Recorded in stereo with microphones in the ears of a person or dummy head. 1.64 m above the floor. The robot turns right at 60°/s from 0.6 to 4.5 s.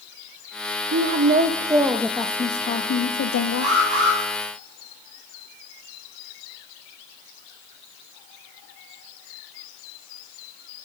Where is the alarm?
145° right, 6 m; by 4.2 s 110° right, 6 m.